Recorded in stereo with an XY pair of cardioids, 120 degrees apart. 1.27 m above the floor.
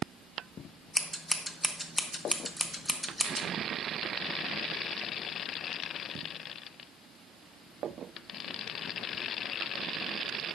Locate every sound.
0.9 s scissors: 5° left, 1.3 m